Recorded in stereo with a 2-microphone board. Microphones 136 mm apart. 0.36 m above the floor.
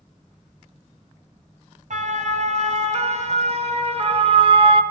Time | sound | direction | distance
1.9 | a siren | 60° right (ahead or behind) | 3.5 m